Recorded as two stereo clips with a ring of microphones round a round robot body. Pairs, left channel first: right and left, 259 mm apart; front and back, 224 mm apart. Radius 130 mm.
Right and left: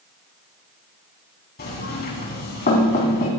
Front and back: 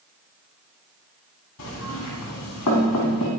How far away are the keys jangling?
No keys jangling in this recording.